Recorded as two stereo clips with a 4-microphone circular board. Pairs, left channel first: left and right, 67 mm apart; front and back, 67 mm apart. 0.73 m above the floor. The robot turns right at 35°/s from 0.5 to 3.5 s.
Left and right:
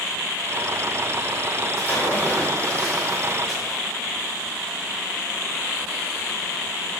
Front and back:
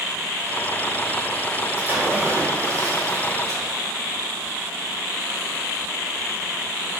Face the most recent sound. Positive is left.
turn(degrees=-170)